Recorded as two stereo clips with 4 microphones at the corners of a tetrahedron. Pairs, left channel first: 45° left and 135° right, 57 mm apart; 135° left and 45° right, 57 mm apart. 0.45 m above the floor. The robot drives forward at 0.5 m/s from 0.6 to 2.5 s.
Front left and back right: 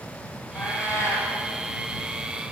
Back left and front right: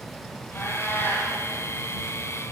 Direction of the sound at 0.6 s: 80° left.